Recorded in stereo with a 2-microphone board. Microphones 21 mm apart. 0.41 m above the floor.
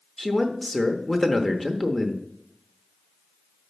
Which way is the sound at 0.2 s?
15° left (ahead or behind).